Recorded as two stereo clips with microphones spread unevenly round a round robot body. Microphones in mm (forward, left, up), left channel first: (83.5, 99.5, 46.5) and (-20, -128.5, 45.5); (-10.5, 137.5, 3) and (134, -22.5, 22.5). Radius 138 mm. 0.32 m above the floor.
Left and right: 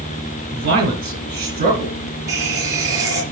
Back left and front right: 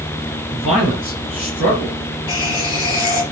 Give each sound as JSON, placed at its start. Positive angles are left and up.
{"t": 0.5, "sound": "a man speaking", "azimuth_deg": -170, "distance_m": 5.0}
{"t": 2.3, "sound": "a running tap", "azimuth_deg": 170, "distance_m": 3.5}